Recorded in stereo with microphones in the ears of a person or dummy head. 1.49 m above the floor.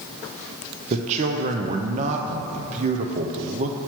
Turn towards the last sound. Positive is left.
turn(degrees=-40)  # may be behind; listen again after turning